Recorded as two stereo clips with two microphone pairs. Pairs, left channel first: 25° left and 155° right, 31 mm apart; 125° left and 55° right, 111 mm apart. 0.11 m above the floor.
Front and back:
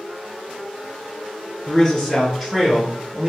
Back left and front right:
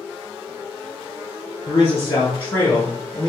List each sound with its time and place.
1.7 s a man speaking: 85° left, 1.5 m; by 3.3 s 165° right, 1.1 m